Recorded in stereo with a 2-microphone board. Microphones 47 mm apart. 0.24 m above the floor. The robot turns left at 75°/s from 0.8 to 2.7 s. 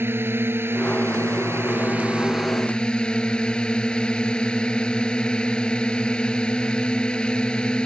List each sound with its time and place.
0.0 s a drone: 60° right; by 7.9 s 160° left